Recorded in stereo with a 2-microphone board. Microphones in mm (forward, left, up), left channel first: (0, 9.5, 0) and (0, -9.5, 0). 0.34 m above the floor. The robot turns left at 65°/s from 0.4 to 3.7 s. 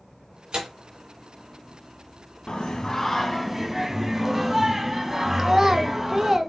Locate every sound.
0.5 s tearing paper: 60° right (ahead or behind), 1.9 m; by 0.7 s 50° right (ahead or behind), 1.9 m
2.5 s singing: 65° left, 0.6 m; by 6.4 s 15° right, 0.6 m
5.4 s a child speaking: 25° right (ahead or behind), 0.6 m